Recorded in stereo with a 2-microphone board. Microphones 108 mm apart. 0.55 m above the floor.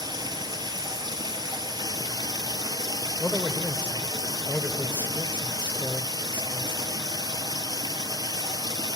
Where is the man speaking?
15° left (ahead or behind), 1.6 m.